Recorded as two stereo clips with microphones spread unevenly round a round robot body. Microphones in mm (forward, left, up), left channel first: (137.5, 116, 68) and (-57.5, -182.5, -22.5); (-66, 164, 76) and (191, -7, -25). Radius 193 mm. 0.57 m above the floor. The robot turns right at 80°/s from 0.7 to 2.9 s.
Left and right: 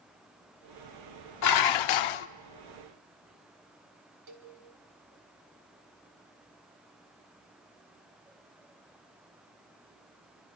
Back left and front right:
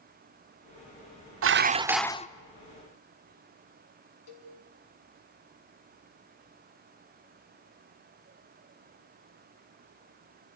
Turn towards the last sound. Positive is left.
turn(degrees=-155)